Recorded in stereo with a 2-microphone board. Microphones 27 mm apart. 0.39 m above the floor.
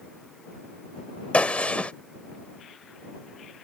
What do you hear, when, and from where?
1.3 s a gunshot: 45° left (ahead or behind)